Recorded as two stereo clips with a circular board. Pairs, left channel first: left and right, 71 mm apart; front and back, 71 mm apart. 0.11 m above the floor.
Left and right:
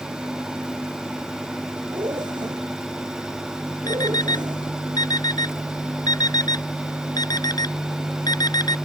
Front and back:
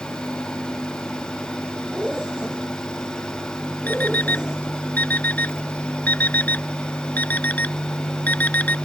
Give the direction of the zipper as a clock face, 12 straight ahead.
3 o'clock.